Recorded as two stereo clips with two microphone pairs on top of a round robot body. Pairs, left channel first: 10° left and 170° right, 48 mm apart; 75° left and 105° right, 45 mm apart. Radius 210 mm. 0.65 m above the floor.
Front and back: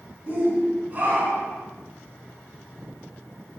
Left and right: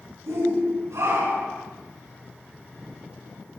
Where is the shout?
110° right, 7.5 m; by 1.6 s 115° right, 9.5 m.